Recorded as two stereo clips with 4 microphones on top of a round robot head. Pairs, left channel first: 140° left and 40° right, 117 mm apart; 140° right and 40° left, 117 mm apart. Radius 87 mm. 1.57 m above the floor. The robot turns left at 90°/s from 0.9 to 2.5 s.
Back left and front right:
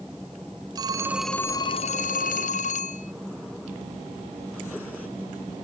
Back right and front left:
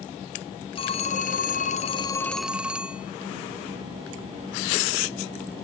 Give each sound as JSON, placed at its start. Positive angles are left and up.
{"t": 0.8, "sound": "a phone ringing", "azimuth_deg": -95}